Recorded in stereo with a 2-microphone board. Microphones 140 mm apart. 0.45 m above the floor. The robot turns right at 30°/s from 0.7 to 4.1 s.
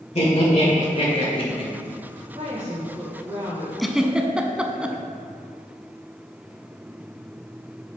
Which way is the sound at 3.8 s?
Centre (ahead or behind).